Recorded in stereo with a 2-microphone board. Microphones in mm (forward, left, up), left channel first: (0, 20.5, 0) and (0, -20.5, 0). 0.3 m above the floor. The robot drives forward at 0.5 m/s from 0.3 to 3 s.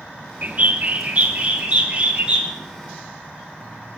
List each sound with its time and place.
0.4 s a bird: 40° right (ahead or behind), 1.3 m; by 2.5 s 20° right (ahead or behind), 2 m